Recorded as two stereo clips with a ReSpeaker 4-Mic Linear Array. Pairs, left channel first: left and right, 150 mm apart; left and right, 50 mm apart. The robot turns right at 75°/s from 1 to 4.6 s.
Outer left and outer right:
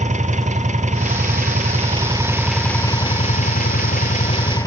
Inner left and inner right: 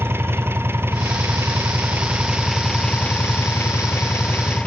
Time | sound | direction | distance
0.0 | an engine running | 115° right | 1.8 m